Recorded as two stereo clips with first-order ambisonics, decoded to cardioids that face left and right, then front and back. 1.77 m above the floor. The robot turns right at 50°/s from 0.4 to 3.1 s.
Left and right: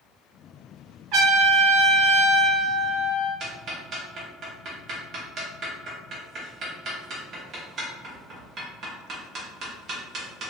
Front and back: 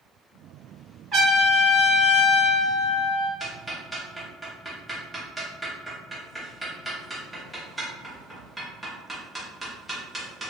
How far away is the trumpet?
About 1.7 m.